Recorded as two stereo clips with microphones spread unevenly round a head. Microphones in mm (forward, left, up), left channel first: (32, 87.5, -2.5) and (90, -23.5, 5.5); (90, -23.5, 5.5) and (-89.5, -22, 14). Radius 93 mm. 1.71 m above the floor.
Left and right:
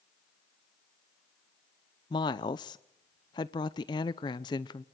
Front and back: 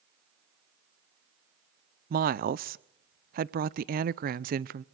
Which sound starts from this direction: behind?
A woman speaking, at 2.1 s.